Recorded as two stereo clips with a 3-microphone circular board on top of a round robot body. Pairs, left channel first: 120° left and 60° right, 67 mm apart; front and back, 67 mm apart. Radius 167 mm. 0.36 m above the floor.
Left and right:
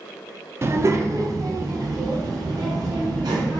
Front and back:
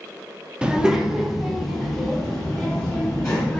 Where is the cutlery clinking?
No cutlery clinking in this recording.